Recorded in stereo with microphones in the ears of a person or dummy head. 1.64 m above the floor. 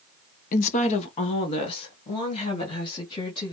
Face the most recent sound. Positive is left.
turn(degrees=30)  # may be behind; listen again after turning